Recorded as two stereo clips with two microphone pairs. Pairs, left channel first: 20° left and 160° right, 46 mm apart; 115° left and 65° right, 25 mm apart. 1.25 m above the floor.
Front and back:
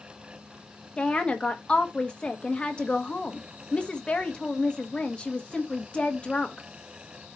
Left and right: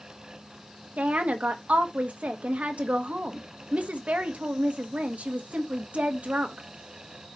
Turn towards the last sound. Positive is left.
turn(degrees=-45)